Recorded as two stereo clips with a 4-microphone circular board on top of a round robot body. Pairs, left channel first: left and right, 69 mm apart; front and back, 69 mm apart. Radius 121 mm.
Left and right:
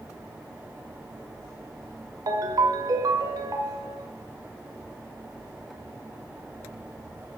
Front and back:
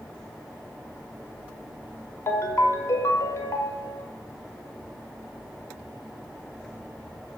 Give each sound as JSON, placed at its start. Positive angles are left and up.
{"t": 2.3, "sound": "a ringtone", "azimuth_deg": -50, "distance_m": 1.0}